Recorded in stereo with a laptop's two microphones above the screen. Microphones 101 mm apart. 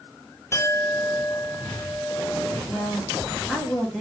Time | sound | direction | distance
0.5 | a clink | 25° left (ahead or behind) | 0.9 m
2.7 | a woman speaking | centre (ahead or behind) | 1.0 m